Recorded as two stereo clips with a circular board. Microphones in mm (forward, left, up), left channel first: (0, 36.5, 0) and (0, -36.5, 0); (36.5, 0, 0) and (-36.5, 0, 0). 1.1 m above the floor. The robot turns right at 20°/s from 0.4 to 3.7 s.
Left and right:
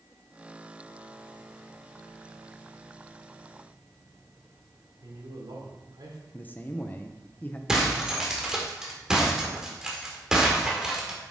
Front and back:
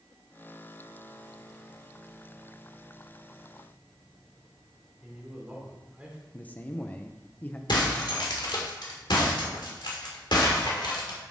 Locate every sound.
5.0 s a man speaking: 105° right, 2.5 m
6.3 s a man speaking: 50° left, 0.8 m
7.7 s breaking glass: 5° right, 1.9 m